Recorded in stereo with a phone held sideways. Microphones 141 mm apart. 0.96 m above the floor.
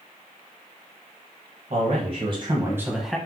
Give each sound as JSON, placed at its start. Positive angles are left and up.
{"t": 1.7, "sound": "a man speaking", "side_deg": -55, "distance_m": 1.0}